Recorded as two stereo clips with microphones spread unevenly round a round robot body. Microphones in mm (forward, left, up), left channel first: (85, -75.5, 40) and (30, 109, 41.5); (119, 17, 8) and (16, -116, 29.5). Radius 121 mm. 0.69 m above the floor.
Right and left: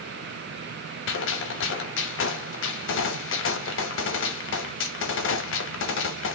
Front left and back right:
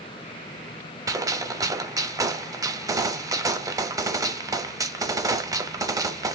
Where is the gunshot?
60° right, 0.6 m.